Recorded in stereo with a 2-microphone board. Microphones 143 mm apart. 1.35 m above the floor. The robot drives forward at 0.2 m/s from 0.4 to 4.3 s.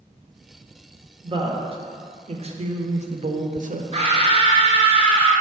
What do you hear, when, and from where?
1.2 s a woman speaking: 35° right (ahead or behind), 0.9 m; by 3.8 s 65° right (ahead or behind), 0.6 m
3.9 s a scream: 40° right (ahead or behind), 1.4 m